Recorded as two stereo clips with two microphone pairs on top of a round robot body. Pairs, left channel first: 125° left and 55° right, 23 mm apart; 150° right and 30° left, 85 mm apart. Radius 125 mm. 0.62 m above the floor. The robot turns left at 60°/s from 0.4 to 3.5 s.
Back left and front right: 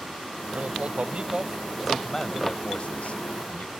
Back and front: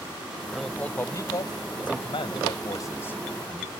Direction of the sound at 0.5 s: 55° right.